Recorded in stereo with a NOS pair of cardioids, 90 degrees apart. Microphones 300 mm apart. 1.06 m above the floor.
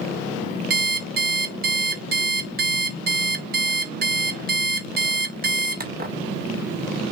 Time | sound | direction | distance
0.7 | an alarm clock | 30° right | 1.2 m